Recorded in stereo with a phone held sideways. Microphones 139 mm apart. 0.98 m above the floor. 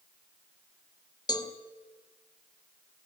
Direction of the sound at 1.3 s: 30° left (ahead or behind).